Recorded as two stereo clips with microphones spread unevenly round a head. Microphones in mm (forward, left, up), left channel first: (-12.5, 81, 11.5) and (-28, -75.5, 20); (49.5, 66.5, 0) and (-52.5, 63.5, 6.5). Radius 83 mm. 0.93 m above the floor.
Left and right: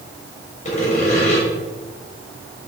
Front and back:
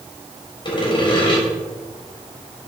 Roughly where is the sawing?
Ahead left.